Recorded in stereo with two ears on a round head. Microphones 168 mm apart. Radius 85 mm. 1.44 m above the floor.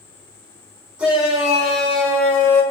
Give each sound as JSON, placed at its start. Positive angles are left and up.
{"t": 1.0, "sound": "a shout", "side_deg": -5, "distance_m": 5.0}